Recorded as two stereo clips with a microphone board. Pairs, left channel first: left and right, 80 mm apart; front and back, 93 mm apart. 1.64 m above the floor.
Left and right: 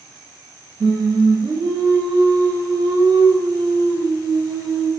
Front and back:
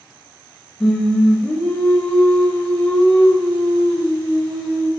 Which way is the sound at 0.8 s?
80° right.